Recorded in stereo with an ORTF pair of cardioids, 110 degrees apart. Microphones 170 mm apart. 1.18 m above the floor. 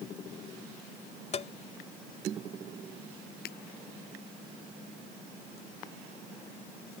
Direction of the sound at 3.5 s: 70° left.